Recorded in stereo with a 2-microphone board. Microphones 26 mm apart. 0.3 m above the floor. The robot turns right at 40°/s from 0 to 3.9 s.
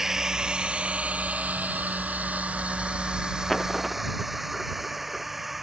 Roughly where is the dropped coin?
Centre.